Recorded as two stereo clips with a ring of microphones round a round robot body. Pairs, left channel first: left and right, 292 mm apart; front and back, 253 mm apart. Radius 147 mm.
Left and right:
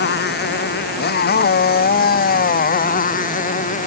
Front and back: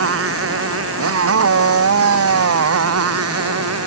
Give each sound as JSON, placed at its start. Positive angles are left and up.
{"t": 0.0, "sound": "a motorcycle", "azimuth_deg": 145}